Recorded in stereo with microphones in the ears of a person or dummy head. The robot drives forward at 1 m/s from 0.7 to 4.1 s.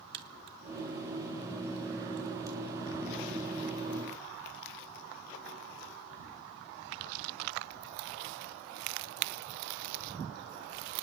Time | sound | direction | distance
0.1 | a crack | 55° right (ahead or behind) | 0.9 m